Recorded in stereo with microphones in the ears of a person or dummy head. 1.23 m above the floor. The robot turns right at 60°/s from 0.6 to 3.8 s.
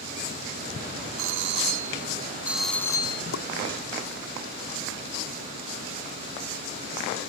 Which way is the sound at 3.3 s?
85° left.